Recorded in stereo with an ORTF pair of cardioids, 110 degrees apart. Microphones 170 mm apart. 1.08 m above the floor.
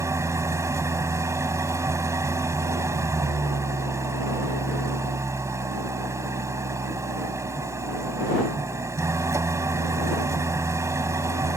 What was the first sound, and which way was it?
An engine running, 15° right.